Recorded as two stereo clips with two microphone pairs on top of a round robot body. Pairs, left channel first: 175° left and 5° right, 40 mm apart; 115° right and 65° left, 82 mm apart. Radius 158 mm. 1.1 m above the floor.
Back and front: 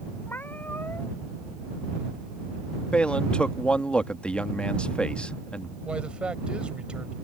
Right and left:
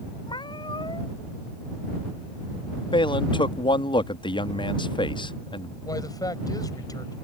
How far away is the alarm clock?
No alarm clock in this recording.